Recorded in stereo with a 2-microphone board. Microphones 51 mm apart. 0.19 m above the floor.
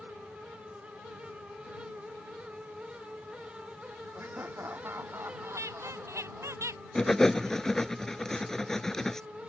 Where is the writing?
10° left (ahead or behind).